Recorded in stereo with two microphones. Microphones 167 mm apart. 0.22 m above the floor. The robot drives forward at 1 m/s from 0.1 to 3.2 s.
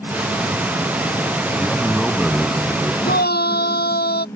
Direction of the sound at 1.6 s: Centre (ahead or behind).